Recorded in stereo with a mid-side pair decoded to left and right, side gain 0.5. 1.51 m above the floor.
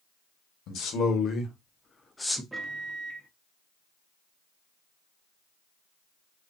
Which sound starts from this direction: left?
A man speaking, at 0.7 s.